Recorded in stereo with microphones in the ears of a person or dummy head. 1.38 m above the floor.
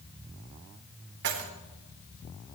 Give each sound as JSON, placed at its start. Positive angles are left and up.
{"t": 1.2, "sound": "keys jangling", "side_deg": -65, "distance_m": 1.4}